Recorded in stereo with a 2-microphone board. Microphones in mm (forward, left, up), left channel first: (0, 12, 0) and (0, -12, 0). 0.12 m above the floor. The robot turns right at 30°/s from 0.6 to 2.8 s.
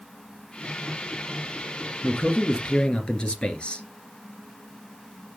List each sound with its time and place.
2.0 s a man speaking: 40° left (ahead or behind), 2 m; by 3.9 s 45° left (ahead or behind), 2 m